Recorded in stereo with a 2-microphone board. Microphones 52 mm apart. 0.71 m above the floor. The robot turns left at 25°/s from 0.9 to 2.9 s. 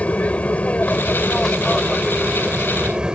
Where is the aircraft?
30° left; by 3.1 s 20° right.